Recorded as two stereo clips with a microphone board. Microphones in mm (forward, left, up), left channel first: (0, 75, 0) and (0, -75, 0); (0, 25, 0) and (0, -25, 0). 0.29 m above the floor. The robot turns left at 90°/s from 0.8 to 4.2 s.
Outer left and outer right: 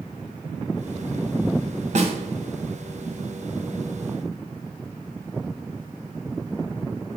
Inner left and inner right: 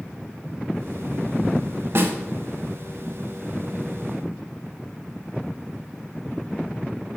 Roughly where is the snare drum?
Right.